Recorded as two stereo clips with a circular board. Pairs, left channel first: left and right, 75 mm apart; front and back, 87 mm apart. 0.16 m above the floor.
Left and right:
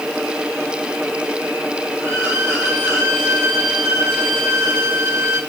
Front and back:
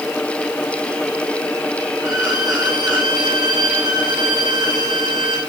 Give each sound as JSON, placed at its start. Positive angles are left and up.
{"t": 2.0, "sound": "a violin", "azimuth_deg": -140, "distance_m": 2.5}